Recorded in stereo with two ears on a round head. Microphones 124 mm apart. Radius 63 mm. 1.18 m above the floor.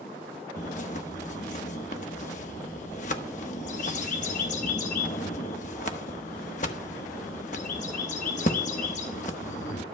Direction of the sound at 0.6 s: 55° left (ahead or behind).